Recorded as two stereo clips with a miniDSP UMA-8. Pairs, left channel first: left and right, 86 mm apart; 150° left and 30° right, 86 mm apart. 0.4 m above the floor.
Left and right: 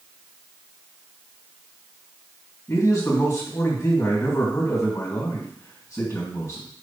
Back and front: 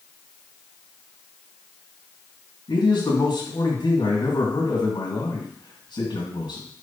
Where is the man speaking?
135° left, 3 m.